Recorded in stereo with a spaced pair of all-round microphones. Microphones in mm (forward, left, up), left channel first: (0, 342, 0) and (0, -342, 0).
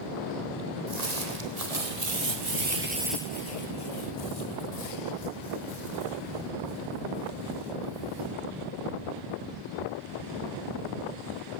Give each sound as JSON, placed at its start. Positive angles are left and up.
{"t": 0.9, "sound": "footsteps", "side_deg": -65, "distance_m": 3.0}